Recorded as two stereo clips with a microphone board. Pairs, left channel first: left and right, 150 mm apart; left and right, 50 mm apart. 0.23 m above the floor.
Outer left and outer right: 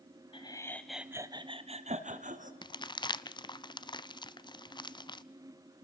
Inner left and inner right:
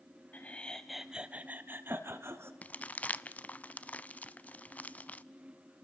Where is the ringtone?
I don't hear a ringtone.